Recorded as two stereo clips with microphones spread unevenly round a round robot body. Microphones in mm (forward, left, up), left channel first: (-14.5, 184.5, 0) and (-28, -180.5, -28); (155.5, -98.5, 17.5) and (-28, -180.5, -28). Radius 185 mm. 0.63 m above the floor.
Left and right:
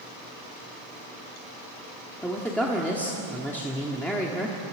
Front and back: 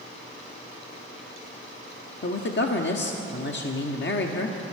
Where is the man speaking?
Straight ahead, 1.2 m.